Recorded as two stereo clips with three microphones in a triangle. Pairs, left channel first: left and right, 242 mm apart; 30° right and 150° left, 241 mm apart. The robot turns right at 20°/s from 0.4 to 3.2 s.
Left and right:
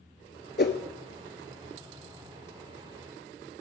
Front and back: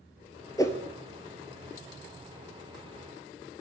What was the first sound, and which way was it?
A whoosh, 45° left.